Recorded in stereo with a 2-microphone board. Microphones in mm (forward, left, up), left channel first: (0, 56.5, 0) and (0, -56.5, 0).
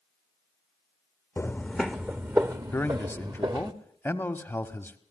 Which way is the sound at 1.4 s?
20° left (ahead or behind).